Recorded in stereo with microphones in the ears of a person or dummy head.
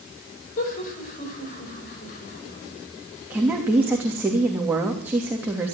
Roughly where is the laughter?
Left.